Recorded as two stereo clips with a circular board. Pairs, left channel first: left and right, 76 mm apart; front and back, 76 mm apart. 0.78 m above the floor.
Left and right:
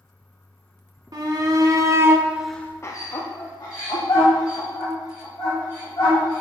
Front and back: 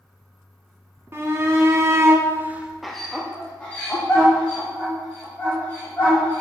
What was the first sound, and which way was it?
A shout, 125° right.